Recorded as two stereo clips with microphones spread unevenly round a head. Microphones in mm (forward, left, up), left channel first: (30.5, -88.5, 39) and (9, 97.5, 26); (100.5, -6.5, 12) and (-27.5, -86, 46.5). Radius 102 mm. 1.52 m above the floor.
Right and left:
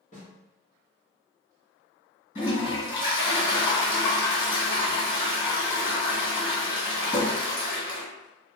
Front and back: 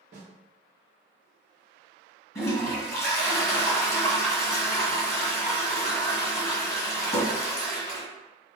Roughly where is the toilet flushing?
Ahead right.